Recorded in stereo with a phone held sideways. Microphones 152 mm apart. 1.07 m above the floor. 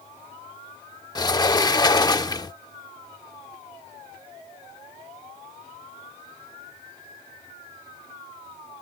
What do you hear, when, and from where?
1.1 s a sliding door: 25° left (ahead or behind)